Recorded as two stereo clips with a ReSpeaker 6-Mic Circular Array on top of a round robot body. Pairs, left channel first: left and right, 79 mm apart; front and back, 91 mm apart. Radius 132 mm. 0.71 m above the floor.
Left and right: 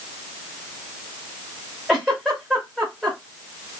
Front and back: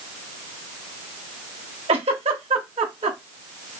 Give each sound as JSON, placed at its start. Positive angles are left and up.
{"t": 1.9, "sound": "a giggle", "azimuth_deg": -175, "distance_m": 0.5}